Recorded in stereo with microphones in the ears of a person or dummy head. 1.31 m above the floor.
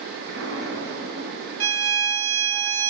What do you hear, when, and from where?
0.3 s an explosion: 65° right (ahead or behind), 2.5 m
1.6 s a violin: 85° right, 0.8 m